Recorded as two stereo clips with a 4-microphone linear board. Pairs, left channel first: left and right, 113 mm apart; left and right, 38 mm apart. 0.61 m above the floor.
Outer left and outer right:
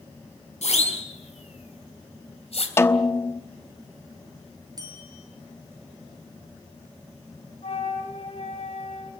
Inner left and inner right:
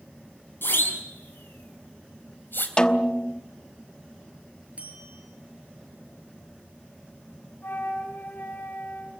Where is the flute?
70° left (ahead or behind), 5 m.